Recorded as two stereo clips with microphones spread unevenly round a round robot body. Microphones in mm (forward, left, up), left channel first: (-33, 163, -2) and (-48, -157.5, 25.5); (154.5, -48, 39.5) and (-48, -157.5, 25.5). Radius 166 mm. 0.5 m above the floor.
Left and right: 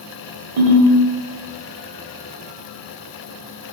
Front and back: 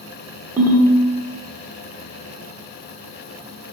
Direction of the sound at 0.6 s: 75° right.